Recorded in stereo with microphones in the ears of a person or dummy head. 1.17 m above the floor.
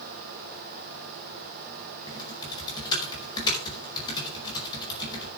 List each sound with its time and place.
2.1 s typing on a keyboard: 25° left (ahead or behind), 5 m